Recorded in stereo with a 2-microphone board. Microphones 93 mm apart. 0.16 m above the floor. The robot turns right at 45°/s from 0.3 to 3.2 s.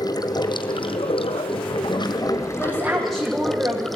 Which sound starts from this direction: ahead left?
Running water, at 0.0 s.